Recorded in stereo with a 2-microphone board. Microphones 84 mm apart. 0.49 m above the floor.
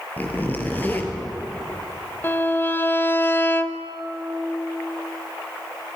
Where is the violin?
25° left (ahead or behind), 1.0 m.